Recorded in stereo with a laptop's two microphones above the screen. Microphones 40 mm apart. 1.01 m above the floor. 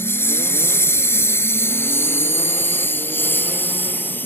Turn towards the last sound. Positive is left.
turn(degrees=55)  # may be behind; listen again after turning